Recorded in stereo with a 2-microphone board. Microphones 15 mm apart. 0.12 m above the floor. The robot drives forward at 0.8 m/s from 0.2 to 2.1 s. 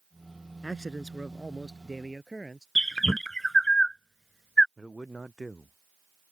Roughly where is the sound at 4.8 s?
Left.